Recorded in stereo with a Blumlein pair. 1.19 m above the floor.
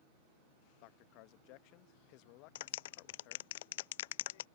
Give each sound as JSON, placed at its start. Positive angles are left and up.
{"t": 0.8, "sound": "a man speaking", "azimuth_deg": 45}
{"t": 2.5, "sound": "a clap", "azimuth_deg": 55}